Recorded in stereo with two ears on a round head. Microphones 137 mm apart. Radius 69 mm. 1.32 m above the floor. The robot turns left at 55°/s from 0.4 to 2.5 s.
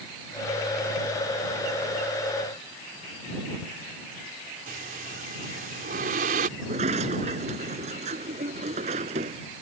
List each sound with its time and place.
4.7 s breathing: 60° right (ahead or behind)
6.6 s a sliding door: 45° right (ahead or behind)